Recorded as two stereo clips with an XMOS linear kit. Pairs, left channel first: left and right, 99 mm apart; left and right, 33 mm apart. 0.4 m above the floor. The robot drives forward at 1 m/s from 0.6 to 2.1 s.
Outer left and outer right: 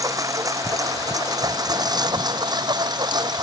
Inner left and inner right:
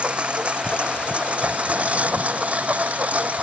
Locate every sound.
0.0 s a lawn mower: 35° right (ahead or behind); by 3.4 s 45° right (ahead or behind)